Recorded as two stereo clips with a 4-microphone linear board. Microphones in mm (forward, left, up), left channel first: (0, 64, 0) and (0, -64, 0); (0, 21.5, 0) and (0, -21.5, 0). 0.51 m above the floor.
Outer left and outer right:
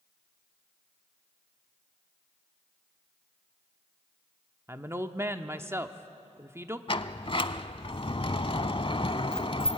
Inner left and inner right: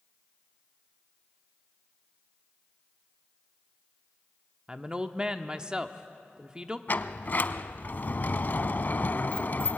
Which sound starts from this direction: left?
A sliding door, at 6.9 s.